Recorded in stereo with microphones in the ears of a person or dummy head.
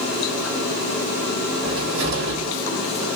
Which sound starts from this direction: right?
A cupboard door, at 1.6 s.